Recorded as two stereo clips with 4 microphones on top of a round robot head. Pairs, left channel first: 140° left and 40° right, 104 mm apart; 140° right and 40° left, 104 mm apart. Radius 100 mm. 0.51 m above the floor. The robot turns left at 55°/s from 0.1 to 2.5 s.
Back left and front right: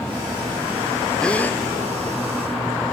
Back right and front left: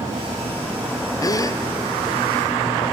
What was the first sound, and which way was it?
A gasp, 145° right.